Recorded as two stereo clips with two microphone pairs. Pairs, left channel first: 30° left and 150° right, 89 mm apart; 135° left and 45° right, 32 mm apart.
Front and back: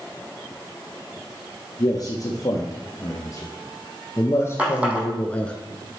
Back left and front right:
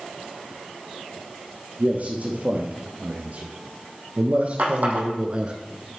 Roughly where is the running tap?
Right.